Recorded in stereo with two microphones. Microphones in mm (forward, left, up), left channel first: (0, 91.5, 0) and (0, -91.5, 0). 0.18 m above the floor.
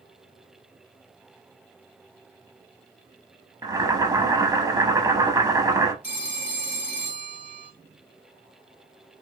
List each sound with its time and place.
3.6 s boiling: 20° right (ahead or behind), 0.5 m
6.0 s a phone ringing: 65° left (ahead or behind), 1.2 m